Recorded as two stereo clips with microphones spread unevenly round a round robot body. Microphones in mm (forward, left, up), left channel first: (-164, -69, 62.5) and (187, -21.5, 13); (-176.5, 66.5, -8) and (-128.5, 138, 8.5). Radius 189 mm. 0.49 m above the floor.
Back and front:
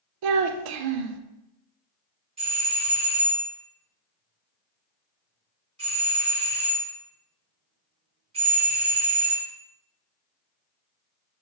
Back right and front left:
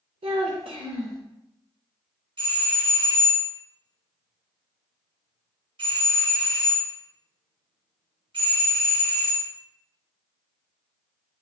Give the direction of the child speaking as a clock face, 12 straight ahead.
11 o'clock.